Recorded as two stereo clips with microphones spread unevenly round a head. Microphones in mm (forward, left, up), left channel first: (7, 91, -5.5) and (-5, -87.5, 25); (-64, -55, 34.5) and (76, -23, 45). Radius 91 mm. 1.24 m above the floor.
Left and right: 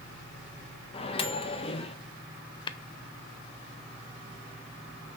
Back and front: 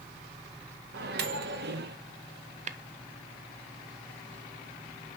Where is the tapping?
40° left, 0.7 m.